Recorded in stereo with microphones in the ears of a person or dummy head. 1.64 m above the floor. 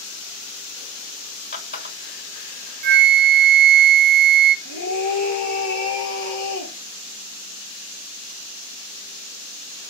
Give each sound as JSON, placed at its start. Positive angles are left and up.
{"t": 1.5, "sound": "a running tap", "side_deg": 55, "distance_m": 3.5}
{"t": 2.8, "sound": "a flute", "side_deg": -55, "distance_m": 0.6}
{"t": 4.7, "sound": "a scream", "side_deg": 60, "distance_m": 1.5}